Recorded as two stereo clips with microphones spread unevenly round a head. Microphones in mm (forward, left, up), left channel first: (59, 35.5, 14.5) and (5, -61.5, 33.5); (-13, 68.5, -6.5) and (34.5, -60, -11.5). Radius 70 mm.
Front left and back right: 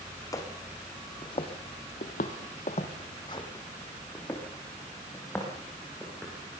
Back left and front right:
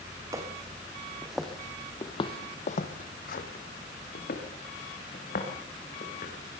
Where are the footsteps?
Straight ahead, 3 m; by 6.3 s 145° left, 7 m.